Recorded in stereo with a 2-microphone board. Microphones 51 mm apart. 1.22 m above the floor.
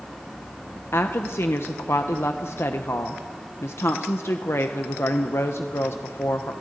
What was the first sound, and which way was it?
A woman speaking, 55° left (ahead or behind).